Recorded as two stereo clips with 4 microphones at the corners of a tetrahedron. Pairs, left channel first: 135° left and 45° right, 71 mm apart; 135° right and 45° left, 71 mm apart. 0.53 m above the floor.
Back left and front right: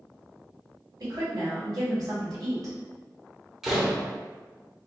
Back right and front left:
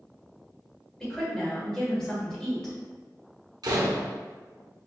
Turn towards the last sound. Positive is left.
turn(degrees=40)